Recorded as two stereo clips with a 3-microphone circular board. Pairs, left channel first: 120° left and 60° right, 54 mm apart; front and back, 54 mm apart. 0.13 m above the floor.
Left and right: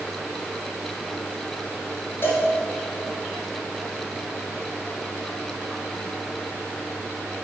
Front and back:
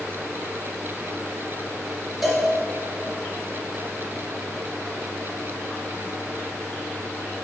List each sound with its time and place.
2.2 s a cowbell: 90° left, 1.3 m